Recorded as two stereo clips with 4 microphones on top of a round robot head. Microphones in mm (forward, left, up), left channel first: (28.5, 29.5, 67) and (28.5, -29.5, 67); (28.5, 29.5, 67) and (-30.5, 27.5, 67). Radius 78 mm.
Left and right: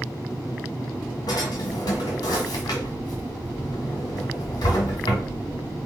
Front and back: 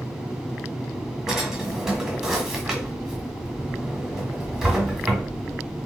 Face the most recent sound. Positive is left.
turn(degrees=105)